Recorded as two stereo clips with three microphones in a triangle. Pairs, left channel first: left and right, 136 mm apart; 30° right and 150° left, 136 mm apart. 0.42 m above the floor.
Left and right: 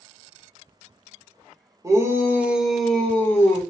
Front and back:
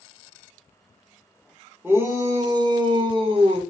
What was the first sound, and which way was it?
A shout, 140° right.